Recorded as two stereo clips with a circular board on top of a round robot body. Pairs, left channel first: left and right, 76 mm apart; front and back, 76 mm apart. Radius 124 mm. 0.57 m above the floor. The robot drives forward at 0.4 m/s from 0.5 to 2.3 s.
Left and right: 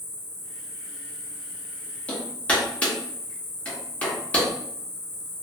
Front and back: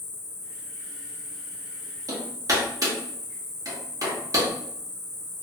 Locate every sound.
0.0 s an insect: 45° left, 1.3 m; by 5.4 s 80° left, 0.9 m
2.1 s hammering: 160° left, 1.2 m